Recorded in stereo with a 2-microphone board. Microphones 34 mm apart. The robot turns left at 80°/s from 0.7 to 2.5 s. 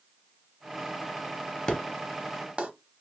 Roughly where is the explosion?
Centre.